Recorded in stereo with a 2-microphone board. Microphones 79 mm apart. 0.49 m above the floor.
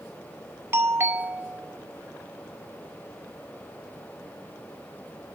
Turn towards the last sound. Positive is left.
turn(degrees=-30)  # may be behind; listen again after turning